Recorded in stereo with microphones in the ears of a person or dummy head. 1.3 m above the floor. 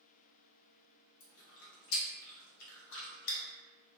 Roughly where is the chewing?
Left.